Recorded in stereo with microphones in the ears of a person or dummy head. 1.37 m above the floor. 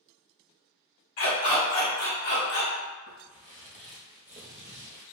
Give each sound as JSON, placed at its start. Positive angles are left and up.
{"t": 1.2, "sound": "a dog barking", "side_deg": 45, "distance_m": 1.9}
{"t": 3.1, "sound": "footsteps", "side_deg": 25, "distance_m": 1.5}